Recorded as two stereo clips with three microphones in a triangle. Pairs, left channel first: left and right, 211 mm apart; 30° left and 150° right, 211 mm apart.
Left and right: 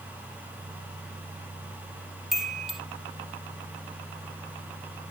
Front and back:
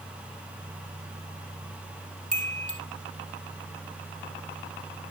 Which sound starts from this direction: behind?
A chime, at 2.3 s.